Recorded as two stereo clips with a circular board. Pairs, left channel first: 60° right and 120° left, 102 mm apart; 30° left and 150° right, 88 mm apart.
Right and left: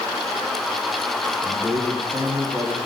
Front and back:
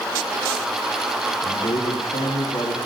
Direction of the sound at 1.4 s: 20° left.